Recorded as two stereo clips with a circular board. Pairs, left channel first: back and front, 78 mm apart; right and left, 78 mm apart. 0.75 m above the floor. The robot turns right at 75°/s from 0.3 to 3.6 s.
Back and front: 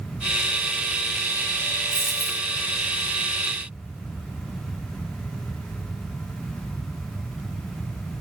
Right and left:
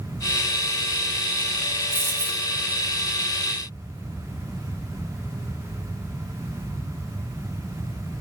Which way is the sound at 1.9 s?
130° right.